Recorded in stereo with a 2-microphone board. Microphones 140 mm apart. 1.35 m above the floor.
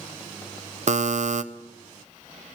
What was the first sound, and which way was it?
A buzzer, 55° right (ahead or behind).